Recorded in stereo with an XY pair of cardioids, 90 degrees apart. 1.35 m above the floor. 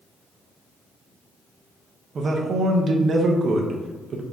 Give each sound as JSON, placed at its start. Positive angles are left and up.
{"t": 2.1, "sound": "a man speaking", "azimuth_deg": -55, "distance_m": 0.9}